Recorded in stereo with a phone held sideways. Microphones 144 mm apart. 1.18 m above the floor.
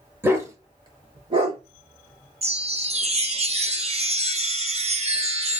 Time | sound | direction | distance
0.2 | a dog barking | 15° right (ahead or behind) | 1.1 m
2.4 | a chime | 45° right (ahead or behind) | 0.7 m